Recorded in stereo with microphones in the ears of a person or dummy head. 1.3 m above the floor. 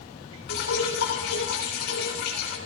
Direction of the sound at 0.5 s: 60° left (ahead or behind).